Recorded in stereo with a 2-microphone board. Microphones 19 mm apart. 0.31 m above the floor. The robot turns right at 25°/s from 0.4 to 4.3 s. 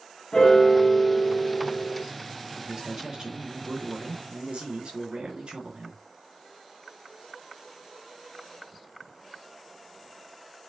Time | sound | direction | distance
0.3 | a piano | 140° left | 3.5 m
2.6 | a man speaking | 150° right | 4.5 m